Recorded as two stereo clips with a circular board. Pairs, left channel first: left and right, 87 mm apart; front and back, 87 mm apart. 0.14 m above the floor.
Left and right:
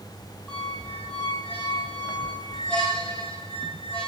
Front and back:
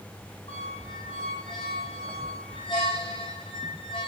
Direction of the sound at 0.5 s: 10° left.